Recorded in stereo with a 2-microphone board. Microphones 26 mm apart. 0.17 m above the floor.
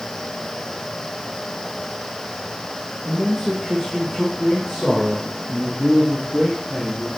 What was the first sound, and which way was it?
A man speaking, centre (ahead or behind).